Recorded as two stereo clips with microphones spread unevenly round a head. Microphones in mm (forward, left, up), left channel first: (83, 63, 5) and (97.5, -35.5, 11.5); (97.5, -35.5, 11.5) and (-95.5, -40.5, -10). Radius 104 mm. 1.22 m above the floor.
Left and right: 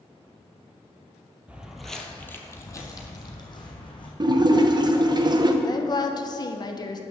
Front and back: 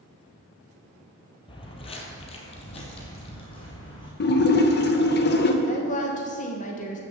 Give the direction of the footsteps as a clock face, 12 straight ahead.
1 o'clock.